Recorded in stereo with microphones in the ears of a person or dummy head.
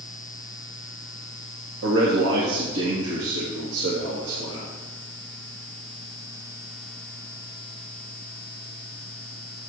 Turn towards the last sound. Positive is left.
turn(degrees=-80)